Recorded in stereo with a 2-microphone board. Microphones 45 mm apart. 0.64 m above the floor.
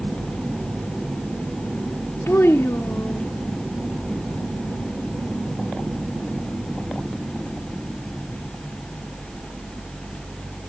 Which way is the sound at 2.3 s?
70° left (ahead or behind).